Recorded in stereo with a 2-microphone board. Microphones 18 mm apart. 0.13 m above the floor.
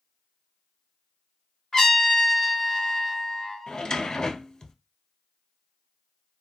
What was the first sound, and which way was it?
A trumpet, 30° left (ahead or behind).